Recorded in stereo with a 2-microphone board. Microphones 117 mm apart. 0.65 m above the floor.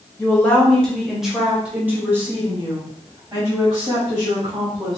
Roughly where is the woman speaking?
Centre.